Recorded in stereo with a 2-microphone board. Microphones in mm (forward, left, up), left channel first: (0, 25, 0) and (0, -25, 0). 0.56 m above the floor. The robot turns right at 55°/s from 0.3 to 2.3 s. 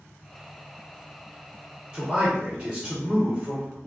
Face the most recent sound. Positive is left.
turn(degrees=-20)  # may be behind; listen again after turning